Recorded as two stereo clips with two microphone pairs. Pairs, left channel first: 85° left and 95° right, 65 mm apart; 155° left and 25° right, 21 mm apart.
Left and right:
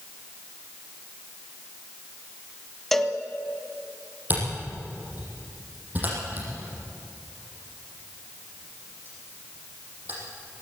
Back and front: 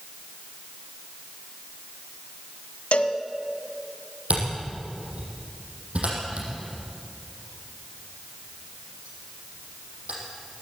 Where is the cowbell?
170° left, 1.0 m.